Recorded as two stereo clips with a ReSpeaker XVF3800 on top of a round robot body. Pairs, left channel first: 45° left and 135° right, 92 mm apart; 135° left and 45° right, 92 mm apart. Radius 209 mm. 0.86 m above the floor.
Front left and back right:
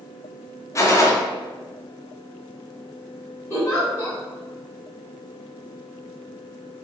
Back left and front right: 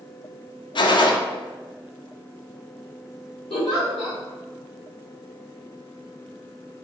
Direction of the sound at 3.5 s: 110° left.